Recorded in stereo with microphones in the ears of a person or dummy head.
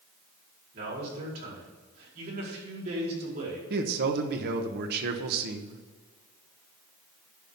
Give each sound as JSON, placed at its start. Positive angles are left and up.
{"t": 0.7, "sound": "a man speaking", "side_deg": -65, "distance_m": 5.0}
{"t": 3.7, "sound": "a man speaking", "side_deg": -65, "distance_m": 1.2}